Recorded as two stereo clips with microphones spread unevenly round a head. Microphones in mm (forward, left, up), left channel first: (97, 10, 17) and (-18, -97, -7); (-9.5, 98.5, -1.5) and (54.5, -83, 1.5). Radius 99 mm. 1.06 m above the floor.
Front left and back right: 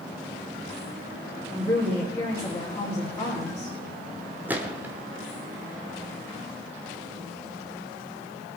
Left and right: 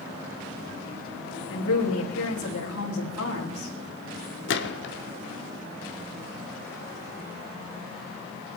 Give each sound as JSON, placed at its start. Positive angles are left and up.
{"t": 1.5, "sound": "a woman speaking", "azimuth_deg": 120, "distance_m": 3.5}
{"t": 4.5, "sound": "a gunshot", "azimuth_deg": 140, "distance_m": 1.2}